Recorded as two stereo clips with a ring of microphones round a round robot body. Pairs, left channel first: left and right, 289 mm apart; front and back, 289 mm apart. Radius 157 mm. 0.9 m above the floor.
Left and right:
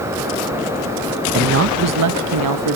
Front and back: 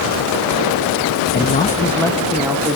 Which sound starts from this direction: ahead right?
A man speaking, at 1.3 s.